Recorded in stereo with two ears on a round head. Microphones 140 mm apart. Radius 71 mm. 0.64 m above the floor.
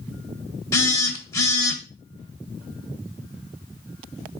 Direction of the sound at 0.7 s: 20° left (ahead or behind).